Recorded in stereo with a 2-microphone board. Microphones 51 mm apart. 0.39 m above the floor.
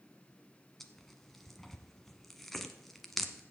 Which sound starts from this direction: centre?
Tearing paper, at 0.8 s.